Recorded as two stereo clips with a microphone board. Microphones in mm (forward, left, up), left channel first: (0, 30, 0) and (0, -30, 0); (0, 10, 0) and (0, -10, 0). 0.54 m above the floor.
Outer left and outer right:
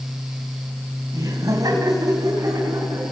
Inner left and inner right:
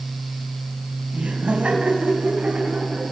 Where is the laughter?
70° right (ahead or behind), 3.5 m; by 3.1 s 80° right, 5.5 m.